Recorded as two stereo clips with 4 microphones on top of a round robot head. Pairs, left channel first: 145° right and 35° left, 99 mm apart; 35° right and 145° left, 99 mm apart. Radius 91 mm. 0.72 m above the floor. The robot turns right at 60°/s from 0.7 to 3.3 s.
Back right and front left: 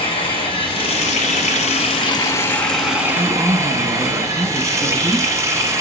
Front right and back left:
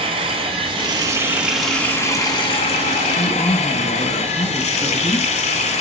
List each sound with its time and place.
0.0 s running water: straight behind, 1.0 m; by 5.8 s 25° right, 1.0 m
3.1 s a man speaking: 30° right, 1.7 m; by 5.3 s 20° right, 1.7 m